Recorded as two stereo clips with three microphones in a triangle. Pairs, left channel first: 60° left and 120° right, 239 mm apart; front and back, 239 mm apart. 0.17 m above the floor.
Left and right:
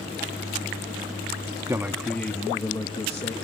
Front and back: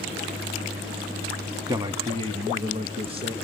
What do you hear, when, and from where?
1.7 s a man speaking: 150° right, 1.1 m; by 3.3 s 115° left, 2 m